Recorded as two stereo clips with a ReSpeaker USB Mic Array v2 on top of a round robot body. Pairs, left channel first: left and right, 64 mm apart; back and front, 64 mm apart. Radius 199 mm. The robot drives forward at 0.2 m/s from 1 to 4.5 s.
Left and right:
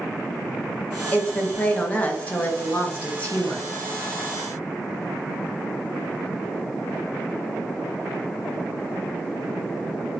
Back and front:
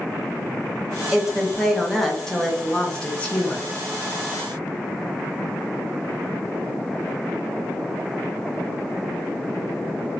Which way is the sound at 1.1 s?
65° left.